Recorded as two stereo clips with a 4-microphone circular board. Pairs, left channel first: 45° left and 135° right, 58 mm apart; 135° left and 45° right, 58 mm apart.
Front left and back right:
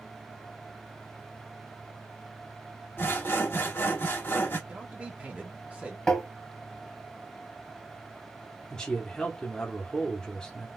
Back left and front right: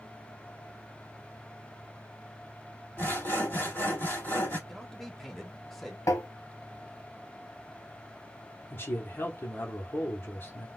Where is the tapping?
120° left, 1.1 m.